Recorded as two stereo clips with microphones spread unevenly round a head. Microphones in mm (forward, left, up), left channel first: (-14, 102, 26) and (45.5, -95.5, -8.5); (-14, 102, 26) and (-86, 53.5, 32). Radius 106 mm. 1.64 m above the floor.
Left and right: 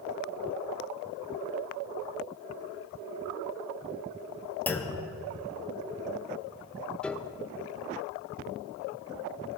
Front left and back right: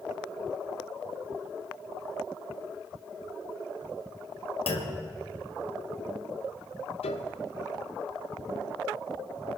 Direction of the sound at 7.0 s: 25° left.